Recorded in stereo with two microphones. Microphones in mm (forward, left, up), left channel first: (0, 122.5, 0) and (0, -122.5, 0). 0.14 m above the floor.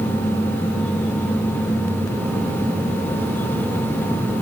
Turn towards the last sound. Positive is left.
No sound to turn to.